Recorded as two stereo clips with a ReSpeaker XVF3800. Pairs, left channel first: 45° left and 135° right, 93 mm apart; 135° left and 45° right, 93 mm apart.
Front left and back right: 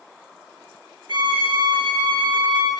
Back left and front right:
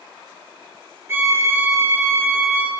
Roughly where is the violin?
Right.